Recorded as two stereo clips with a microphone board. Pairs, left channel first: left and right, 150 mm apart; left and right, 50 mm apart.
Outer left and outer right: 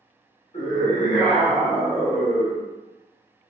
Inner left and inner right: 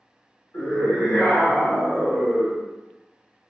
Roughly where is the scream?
Left.